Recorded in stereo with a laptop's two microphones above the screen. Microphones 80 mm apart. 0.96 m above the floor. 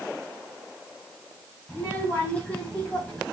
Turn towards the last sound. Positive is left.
turn(degrees=15)  # may be behind; listen again after turning